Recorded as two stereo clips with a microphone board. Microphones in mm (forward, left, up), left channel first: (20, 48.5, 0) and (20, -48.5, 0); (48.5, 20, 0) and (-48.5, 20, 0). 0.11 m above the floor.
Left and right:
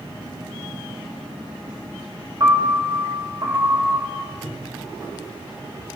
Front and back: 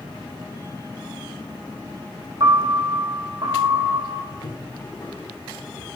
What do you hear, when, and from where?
2.4 s a piano: 135° right, 3.5 m
4.3 s footsteps: 30° right, 4.5 m